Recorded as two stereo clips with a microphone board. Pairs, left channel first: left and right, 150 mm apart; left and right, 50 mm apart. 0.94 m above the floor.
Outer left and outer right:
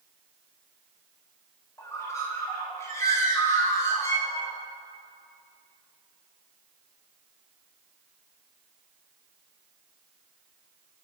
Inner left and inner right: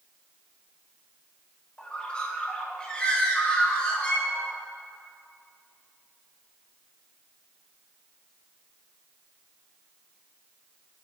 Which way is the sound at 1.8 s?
20° left (ahead or behind).